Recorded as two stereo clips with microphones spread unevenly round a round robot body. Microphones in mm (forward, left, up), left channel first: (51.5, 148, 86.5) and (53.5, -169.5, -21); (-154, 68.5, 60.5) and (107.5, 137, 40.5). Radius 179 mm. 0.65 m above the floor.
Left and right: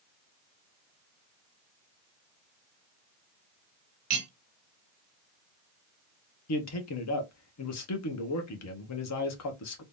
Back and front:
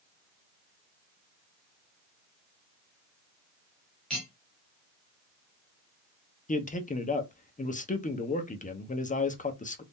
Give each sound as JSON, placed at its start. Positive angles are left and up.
{"t": 4.1, "sound": "cutlery clinking", "azimuth_deg": -75, "distance_m": 1.3}
{"t": 6.5, "sound": "a man speaking", "azimuth_deg": 135, "distance_m": 0.9}